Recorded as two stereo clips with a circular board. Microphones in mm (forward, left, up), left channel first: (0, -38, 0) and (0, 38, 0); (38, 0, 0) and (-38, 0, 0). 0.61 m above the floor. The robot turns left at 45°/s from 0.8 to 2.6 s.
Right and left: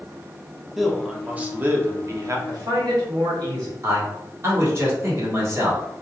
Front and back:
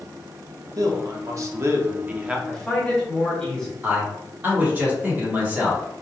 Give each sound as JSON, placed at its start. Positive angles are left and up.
{"t": 0.8, "sound": "a man speaking", "azimuth_deg": 180, "distance_m": 0.8}
{"t": 2.5, "sound": "a man speaking", "azimuth_deg": 85, "distance_m": 1.7}
{"t": 3.8, "sound": "a man speaking", "azimuth_deg": 125, "distance_m": 1.6}